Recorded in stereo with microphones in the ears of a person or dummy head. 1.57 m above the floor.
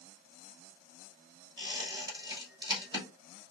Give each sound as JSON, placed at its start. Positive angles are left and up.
{"t": 1.6, "sound": "a squeak", "side_deg": -25, "distance_m": 2.5}